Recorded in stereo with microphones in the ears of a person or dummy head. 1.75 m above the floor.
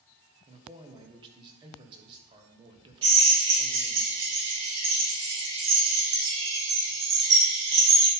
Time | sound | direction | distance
0.5 | a man speaking | 25° right (ahead or behind) | 1.3 m
3.0 | a drill | 30° right (ahead or behind) | 3.5 m